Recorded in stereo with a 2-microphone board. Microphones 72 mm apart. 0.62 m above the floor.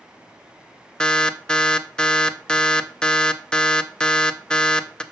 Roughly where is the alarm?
Centre.